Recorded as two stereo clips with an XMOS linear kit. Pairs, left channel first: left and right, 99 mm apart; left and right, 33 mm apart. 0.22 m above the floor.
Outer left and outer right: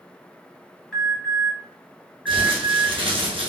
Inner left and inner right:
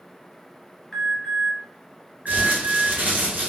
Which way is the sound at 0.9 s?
5° left (ahead or behind).